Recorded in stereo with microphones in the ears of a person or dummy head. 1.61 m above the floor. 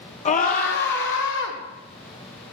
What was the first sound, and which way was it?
A scream, 35° left (ahead or behind).